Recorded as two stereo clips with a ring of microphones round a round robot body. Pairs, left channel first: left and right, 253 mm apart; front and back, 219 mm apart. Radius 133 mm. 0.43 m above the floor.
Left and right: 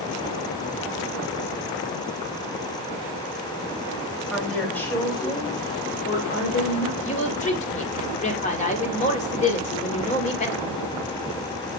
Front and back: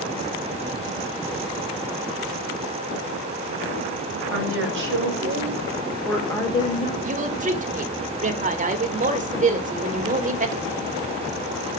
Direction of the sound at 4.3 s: Straight behind.